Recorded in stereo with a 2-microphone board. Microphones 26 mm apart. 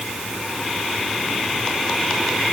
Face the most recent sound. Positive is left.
No sound to turn to.